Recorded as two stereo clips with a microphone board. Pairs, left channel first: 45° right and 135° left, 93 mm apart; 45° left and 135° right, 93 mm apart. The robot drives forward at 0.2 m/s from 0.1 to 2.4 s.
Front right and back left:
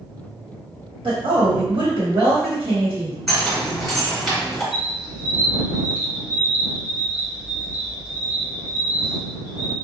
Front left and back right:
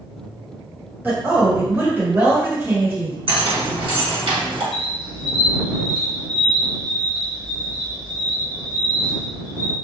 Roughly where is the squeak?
Behind right.